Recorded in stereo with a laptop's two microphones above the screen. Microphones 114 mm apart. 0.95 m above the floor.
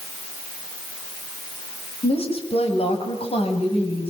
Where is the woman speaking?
60° left (ahead or behind), 6 m.